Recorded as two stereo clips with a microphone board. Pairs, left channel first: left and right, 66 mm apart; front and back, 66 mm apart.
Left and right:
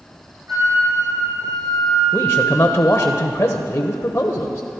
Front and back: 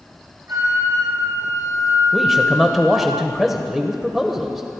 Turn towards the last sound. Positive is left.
turn(degrees=90)